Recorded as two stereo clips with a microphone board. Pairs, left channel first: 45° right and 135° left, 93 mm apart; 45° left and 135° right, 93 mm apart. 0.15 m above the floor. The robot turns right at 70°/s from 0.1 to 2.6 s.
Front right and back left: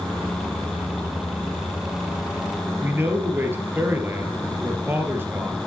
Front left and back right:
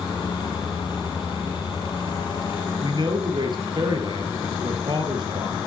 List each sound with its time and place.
2.8 s a man speaking: 160° right, 2.5 m